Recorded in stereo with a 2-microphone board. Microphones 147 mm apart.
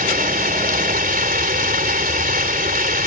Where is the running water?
75° right (ahead or behind).